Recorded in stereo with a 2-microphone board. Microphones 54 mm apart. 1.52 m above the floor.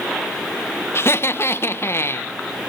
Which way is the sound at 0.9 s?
50° left (ahead or behind).